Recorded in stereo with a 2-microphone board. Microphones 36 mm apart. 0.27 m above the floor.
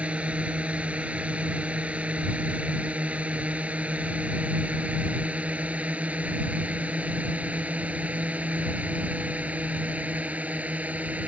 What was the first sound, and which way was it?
A drone, 40° right (ahead or behind).